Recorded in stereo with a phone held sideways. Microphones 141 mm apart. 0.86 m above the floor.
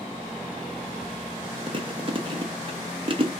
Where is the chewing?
40° right (ahead or behind), 0.8 m.